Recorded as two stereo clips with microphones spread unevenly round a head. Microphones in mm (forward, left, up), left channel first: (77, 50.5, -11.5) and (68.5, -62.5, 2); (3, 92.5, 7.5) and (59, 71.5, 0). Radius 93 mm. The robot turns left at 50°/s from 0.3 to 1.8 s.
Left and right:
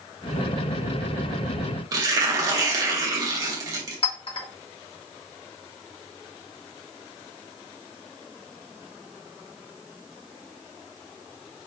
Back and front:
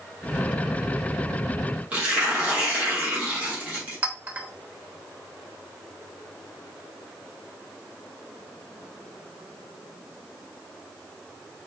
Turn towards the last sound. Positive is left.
turn(degrees=45)